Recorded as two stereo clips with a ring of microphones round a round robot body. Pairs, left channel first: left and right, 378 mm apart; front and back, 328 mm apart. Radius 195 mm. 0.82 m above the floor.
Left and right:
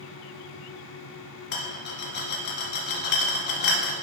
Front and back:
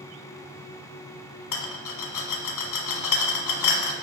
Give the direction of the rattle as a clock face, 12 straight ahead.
11 o'clock.